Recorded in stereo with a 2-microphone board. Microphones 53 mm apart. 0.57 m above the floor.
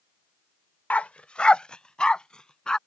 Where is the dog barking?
30° left (ahead or behind); by 2.8 s 15° left (ahead or behind).